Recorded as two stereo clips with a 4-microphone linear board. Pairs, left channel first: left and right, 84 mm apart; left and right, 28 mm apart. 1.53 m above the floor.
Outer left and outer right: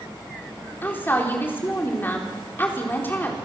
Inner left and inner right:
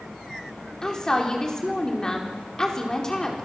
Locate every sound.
0.8 s a woman speaking: 25° left (ahead or behind), 4 m